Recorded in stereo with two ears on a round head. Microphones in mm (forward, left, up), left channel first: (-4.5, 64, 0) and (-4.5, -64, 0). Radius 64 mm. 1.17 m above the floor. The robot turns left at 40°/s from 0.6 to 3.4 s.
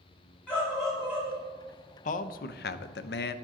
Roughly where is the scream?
Ahead.